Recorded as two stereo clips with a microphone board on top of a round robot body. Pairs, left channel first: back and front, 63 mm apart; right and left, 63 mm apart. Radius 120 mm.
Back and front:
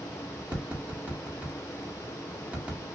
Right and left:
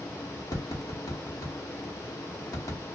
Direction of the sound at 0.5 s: 65° right.